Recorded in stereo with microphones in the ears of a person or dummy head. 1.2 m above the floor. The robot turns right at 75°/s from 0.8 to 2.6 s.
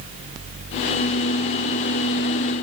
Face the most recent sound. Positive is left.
No sound to turn to.